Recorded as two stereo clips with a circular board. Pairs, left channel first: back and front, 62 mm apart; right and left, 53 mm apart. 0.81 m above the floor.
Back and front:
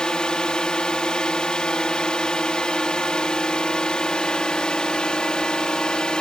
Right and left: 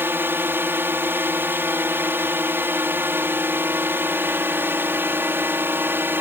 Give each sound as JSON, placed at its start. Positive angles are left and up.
{"t": 0.0, "sound": "a drone", "azimuth_deg": 110}